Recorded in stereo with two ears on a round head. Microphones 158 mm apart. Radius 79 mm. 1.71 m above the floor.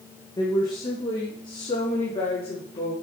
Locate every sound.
0.4 s a woman speaking: 20° left (ahead or behind), 1.9 m; by 2.9 s 30° left (ahead or behind), 4 m